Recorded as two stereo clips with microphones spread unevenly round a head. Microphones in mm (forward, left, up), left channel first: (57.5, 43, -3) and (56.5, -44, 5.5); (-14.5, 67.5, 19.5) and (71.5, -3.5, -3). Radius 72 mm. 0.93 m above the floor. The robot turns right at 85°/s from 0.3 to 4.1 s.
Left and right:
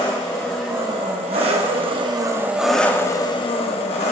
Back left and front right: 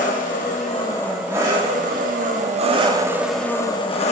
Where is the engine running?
155° left, 0.8 m; by 4.1 s 120° left, 0.8 m.